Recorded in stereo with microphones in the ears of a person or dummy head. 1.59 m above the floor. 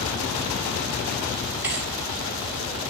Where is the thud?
15° right (ahead or behind), 1.9 m.